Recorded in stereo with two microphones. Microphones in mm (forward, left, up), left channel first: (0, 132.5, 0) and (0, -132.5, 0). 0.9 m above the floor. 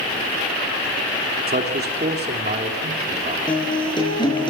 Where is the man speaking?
35° right (ahead or behind), 2.5 m.